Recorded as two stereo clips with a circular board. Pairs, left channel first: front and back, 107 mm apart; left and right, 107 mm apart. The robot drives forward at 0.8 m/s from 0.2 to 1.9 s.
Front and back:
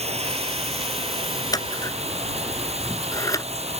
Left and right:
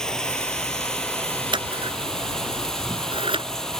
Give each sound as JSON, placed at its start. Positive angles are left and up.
{"t": 0.0, "sound": "running water", "azimuth_deg": 175}
{"t": 1.5, "sound": "scissors", "azimuth_deg": -50}